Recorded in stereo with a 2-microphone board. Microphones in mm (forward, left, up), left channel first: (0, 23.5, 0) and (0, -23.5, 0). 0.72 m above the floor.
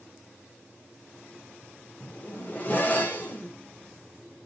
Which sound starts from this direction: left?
A zipper, at 2.0 s.